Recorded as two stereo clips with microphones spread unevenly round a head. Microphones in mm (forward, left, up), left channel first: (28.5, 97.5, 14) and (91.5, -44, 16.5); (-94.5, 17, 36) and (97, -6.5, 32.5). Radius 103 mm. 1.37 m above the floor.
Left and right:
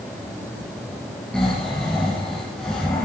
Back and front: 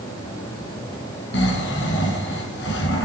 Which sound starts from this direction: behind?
Snoring, at 1.3 s.